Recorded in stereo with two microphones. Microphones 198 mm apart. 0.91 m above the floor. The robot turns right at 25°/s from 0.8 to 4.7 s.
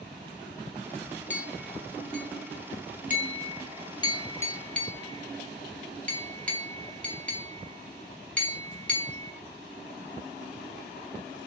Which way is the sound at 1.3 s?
75° left (ahead or behind).